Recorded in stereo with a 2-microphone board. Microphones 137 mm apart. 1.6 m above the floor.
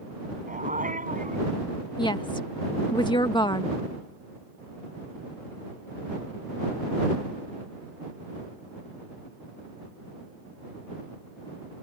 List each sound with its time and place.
0.5 s a dog barking: 80° right
2.0 s a woman speaking: 35° left (ahead or behind)